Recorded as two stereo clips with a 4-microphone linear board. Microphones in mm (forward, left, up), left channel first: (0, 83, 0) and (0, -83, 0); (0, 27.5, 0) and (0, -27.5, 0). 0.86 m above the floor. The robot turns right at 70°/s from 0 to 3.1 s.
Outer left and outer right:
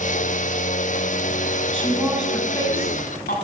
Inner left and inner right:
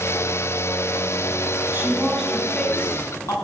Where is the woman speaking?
35° right, 7.5 m; by 3.4 s 60° left, 7.5 m.